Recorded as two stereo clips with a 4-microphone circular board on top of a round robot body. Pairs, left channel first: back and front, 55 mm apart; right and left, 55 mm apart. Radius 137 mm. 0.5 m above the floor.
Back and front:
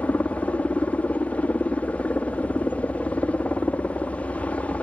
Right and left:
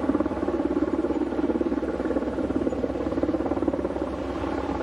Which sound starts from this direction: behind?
A helicopter, at 0.0 s.